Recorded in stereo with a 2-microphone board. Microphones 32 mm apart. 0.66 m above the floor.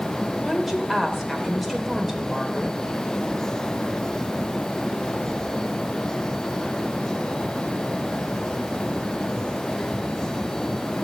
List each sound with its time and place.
0.4 s a woman speaking: centre (ahead or behind), 2 m